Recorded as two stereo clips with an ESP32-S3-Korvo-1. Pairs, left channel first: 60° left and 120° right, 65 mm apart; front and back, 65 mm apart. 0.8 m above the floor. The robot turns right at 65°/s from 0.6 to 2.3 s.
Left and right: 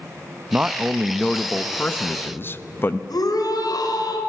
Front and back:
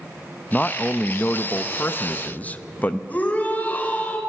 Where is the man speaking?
65° right, 0.7 m; by 3.0 s 45° left, 0.7 m.